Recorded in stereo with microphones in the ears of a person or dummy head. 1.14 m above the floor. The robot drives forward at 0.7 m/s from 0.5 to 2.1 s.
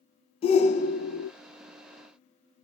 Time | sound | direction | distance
0.4 | a shout | 35° left (ahead or behind) | 0.8 m